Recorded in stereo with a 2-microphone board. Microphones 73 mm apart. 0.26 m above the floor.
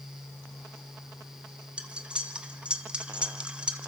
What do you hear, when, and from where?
1.8 s cutlery clinking: 15° right (ahead or behind), 1.5 m